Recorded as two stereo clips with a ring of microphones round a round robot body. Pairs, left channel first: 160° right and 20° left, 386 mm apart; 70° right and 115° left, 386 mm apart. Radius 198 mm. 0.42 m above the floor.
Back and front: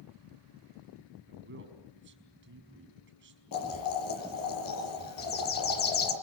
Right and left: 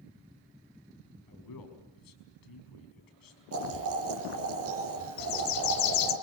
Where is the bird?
95° right, 2.0 m.